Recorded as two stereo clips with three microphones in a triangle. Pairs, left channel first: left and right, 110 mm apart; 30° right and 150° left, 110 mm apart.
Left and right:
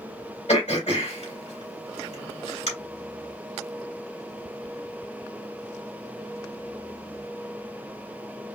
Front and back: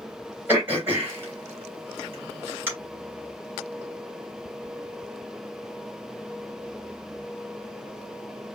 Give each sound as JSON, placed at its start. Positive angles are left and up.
{"t": 0.5, "sound": "throat clearing", "azimuth_deg": 80, "distance_m": 3.0}